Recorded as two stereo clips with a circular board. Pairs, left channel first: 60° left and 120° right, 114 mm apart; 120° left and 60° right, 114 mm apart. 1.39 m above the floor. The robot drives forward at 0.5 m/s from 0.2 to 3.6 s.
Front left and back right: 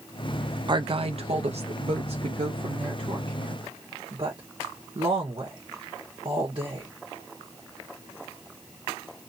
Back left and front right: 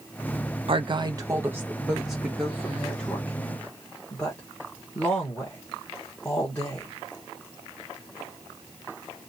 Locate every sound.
0.7 s a woman speaking: 80° right, 0.5 m; by 6.9 s 160° right, 1.5 m